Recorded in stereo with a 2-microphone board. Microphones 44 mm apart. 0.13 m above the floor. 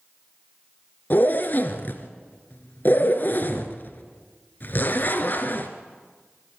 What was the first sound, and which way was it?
A zipper, 50° left (ahead or behind).